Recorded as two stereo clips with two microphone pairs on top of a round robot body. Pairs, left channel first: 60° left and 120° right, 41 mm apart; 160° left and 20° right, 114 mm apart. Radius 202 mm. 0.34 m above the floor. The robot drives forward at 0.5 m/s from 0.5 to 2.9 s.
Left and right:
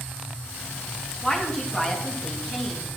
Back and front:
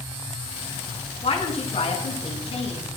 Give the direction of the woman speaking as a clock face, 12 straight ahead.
8 o'clock.